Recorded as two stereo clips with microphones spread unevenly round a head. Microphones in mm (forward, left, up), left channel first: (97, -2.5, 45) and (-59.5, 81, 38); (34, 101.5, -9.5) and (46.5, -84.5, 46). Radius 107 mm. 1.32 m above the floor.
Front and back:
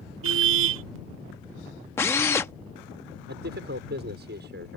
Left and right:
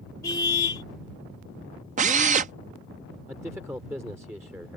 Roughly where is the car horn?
Behind.